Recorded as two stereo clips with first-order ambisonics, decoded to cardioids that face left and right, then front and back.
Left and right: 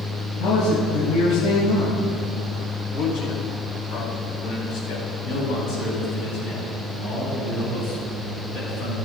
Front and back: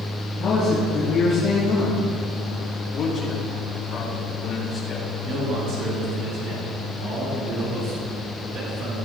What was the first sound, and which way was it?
A man speaking, 70° left.